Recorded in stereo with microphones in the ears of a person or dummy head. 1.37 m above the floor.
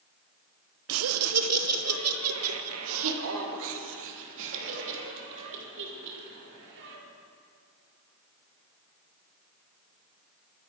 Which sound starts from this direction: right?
Laughter, at 0.9 s.